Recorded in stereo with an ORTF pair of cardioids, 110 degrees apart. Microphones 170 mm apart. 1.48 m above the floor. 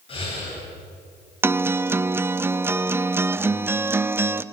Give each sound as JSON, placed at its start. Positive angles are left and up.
{"t": 0.1, "sound": "breathing", "azimuth_deg": 35, "distance_m": 9.5}
{"t": 1.4, "sound": "a guitar", "azimuth_deg": -15, "distance_m": 0.7}